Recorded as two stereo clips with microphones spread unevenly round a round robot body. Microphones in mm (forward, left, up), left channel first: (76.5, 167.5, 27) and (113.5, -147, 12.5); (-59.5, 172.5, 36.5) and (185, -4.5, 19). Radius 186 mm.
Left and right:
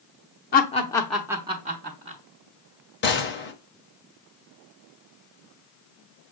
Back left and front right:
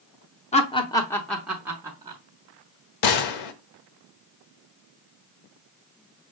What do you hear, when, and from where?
0.5 s laughter: 100° left, 0.8 m; by 2.2 s 100° right, 0.9 m
3.0 s a gunshot: 160° left, 0.6 m